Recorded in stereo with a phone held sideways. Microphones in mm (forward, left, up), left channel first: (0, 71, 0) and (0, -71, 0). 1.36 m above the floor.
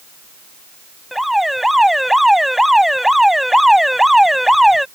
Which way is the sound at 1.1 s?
Centre (ahead or behind).